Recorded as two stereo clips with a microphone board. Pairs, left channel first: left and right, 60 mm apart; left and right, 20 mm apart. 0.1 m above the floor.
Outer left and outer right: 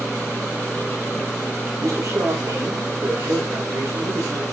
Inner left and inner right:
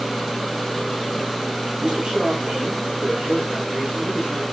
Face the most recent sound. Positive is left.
turn(degrees=-60)  # may be behind; listen again after turning